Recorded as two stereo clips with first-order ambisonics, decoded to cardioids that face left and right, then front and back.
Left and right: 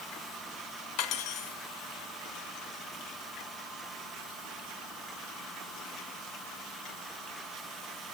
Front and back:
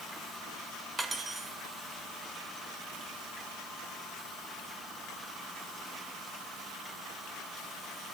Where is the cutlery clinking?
105° left, 0.9 m.